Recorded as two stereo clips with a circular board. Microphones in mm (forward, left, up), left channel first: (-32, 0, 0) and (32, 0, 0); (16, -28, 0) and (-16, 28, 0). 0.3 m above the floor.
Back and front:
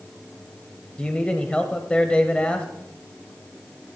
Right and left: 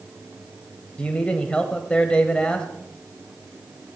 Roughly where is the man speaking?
Behind right.